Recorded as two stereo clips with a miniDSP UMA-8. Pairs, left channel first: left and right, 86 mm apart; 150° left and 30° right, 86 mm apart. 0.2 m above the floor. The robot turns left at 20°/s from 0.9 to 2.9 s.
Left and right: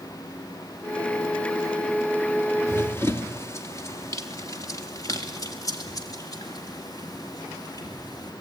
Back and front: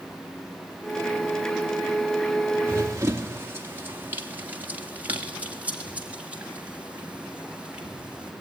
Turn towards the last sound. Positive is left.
turn(degrees=50)